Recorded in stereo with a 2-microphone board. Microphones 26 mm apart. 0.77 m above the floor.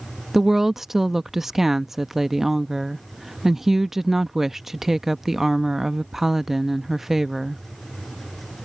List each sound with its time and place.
0.3 s a woman speaking: 10° right (ahead or behind)